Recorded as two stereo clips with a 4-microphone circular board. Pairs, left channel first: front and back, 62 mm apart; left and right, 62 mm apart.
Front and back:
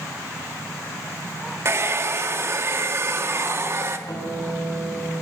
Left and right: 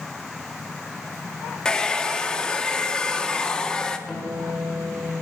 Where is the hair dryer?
160° left, 0.7 m.